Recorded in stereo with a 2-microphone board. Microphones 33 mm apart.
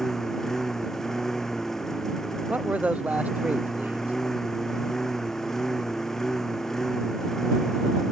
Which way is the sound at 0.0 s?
10° left (ahead or behind).